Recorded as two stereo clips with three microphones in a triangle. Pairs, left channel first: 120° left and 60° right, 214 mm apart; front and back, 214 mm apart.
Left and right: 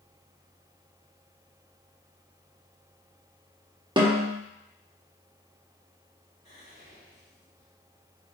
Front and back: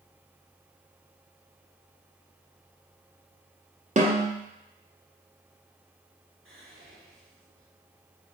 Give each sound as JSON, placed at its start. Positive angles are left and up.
{"t": 4.0, "sound": "a snare drum", "azimuth_deg": -125, "distance_m": 0.9}
{"t": 6.5, "sound": "whispering", "azimuth_deg": 175, "distance_m": 2.0}